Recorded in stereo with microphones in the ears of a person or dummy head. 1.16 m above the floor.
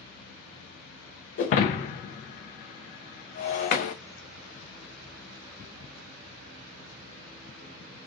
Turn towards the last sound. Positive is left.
turn(degrees=45)  # may be behind; listen again after turning